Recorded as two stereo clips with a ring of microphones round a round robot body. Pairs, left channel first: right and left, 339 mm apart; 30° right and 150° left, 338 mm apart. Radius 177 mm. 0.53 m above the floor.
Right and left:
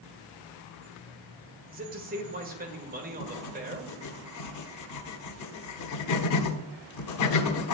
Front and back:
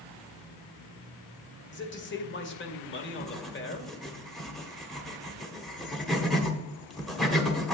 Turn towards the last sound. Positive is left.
turn(degrees=-120)